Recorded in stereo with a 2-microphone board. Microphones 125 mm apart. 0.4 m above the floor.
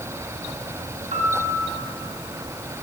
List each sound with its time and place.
1.1 s a piano: 65° right (ahead or behind), 3.5 m